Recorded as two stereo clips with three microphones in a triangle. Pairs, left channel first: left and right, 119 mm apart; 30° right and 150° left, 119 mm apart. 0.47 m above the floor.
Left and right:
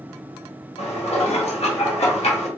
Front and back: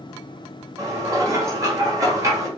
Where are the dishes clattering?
90° left, 1.2 m.